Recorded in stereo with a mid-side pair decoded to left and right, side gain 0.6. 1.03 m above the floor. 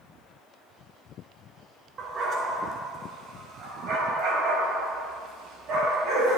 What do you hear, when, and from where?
2.0 s a dog barking: 40° right, 3.5 m; by 6.4 s 60° right, 6.5 m